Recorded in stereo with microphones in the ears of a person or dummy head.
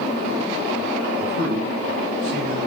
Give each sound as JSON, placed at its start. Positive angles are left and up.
{"t": 1.1, "sound": "a man speaking", "side_deg": -85, "distance_m": 1.6}